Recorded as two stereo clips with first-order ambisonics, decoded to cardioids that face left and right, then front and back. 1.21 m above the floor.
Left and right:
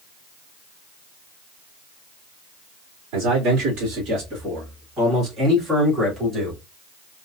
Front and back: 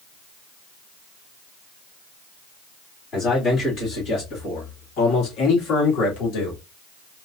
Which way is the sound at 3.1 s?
55° right.